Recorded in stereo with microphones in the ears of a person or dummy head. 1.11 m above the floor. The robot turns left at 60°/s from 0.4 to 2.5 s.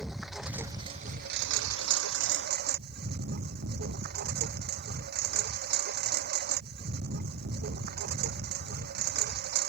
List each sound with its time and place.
0.0 s a lawn mower: straight ahead; by 9.7 s 125° right